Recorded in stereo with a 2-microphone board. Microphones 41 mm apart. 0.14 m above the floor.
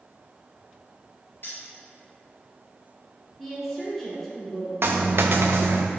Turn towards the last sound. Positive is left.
turn(degrees=-75)  # may be behind; listen again after turning